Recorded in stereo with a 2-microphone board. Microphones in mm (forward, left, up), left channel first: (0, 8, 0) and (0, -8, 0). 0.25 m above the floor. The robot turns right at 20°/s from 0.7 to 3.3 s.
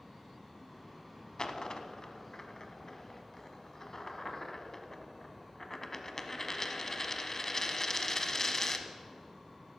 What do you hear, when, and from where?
1.4 s a dropped coin: 55° left (ahead or behind), 0.9 m; by 8.9 s 30° left (ahead or behind), 0.9 m